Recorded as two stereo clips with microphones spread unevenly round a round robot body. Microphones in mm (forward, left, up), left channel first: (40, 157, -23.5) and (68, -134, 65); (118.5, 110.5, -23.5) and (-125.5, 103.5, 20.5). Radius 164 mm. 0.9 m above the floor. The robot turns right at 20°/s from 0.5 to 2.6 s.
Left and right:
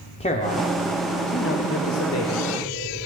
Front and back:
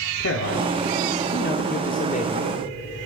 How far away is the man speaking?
About 2.5 m.